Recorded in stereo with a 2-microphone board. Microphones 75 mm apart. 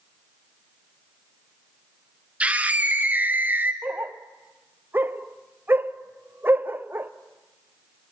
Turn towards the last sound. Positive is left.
turn(degrees=-25)  # may be behind; listen again after turning